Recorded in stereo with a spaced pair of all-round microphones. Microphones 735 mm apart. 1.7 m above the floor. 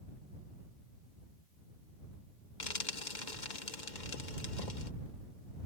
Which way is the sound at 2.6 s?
85° left.